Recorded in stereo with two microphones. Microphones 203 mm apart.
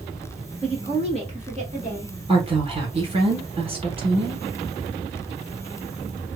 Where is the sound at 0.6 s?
25° right (ahead or behind), 1.1 m; by 2.1 s 35° right (ahead or behind), 1.6 m.